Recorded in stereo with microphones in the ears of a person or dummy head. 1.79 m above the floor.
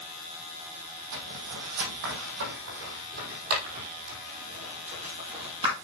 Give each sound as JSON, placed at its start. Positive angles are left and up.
{"t": 1.1, "sound": "footsteps", "side_deg": -65, "distance_m": 5.0}